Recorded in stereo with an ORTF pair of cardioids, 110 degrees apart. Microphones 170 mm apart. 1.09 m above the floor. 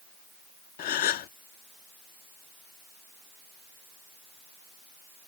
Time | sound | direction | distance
0.8 | a gasp | 60° left | ?